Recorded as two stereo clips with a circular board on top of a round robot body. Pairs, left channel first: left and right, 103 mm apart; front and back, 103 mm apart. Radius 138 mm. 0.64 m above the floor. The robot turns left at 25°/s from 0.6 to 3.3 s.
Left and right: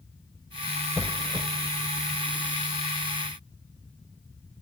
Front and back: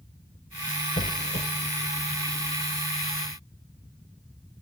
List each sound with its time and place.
1.0 s a squeak: 5° right, 0.5 m; by 1.5 s 15° right, 0.5 m